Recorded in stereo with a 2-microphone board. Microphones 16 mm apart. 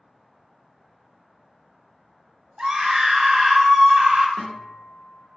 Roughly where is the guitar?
Left.